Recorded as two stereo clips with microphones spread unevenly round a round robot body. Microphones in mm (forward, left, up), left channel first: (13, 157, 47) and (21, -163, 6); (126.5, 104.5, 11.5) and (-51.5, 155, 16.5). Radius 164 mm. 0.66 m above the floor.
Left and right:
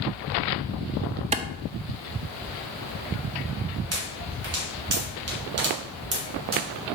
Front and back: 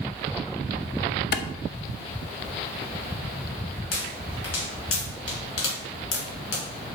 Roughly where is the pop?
Ahead right.